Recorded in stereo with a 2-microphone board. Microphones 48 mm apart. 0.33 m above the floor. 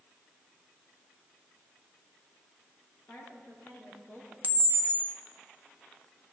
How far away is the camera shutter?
About 1.1 m.